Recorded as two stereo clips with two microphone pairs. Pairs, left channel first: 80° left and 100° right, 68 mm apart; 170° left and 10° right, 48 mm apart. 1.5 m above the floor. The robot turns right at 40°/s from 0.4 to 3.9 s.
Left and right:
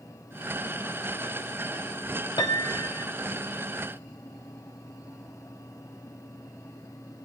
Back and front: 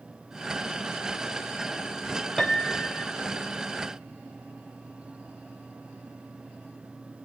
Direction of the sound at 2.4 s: 85° left.